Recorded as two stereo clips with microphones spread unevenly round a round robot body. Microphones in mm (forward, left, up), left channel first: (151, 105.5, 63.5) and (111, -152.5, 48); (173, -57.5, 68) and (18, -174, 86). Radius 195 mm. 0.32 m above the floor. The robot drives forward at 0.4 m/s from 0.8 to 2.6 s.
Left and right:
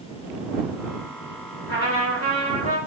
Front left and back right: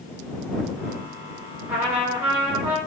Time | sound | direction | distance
1.7 | a trumpet | 135° left | 0.8 m